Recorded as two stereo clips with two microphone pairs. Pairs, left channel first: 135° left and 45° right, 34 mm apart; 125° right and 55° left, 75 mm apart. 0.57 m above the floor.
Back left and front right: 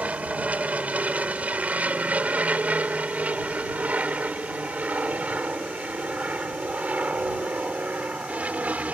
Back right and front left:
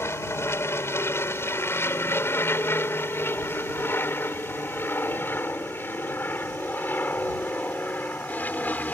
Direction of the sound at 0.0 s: 80° right.